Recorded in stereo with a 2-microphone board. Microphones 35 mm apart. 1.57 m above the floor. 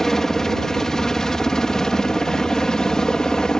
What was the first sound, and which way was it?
A helicopter, 15° left (ahead or behind).